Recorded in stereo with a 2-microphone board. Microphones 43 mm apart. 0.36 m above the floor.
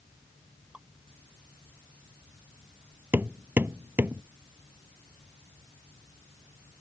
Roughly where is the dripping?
Right.